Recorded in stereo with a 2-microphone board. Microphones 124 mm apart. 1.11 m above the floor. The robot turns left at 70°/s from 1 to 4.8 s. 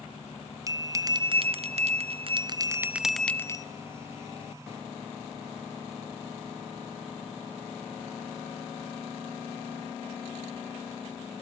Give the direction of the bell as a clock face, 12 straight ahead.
1 o'clock.